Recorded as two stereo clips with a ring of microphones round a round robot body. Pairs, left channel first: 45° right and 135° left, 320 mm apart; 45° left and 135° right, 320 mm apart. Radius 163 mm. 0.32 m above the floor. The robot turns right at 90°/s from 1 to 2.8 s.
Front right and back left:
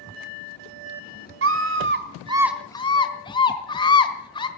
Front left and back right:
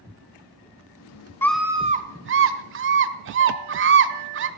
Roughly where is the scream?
Behind left.